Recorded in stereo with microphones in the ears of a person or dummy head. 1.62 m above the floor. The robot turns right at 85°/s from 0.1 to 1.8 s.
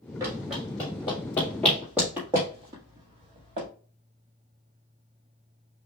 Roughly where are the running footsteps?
Centre.